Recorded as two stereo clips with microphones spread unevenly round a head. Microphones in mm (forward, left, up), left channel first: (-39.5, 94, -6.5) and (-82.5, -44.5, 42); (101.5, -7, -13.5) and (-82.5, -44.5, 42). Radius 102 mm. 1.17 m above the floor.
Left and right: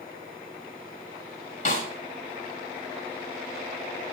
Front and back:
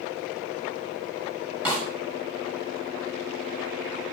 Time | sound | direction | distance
1.6 | a snare drum | 110° left | 5.5 m